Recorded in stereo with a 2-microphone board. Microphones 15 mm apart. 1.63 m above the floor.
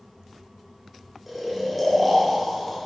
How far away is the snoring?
About 1.3 m.